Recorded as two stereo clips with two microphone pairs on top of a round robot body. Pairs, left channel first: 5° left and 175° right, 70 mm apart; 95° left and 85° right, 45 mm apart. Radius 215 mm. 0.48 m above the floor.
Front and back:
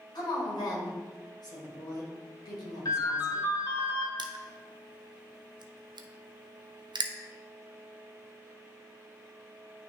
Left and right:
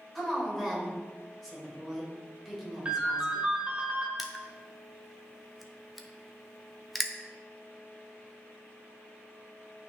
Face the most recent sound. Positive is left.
turn(degrees=-175)